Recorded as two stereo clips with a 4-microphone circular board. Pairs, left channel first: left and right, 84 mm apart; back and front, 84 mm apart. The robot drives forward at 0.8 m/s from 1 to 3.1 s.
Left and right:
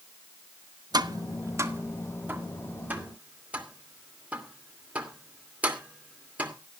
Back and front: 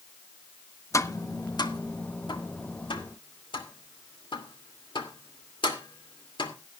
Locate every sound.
0.9 s tapping: 125° right, 0.8 m; by 6.5 s 165° right, 2.5 m